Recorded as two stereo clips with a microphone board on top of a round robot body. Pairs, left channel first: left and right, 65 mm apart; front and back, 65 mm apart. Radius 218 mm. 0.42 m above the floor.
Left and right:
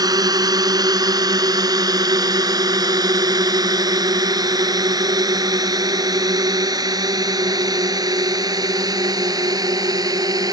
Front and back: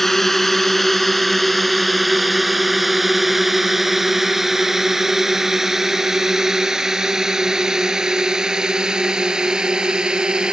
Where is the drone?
85° right; by 10.5 s 105° right.